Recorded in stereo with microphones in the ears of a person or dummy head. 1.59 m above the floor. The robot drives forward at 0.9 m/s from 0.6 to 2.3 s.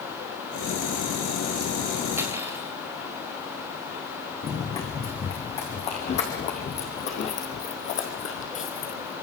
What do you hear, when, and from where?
2.2 s cutlery clinking: 15° right (ahead or behind), 4 m
4.4 s running footsteps: 35° left (ahead or behind), 5.5 m; by 9.1 s 45° left (ahead or behind), 2.5 m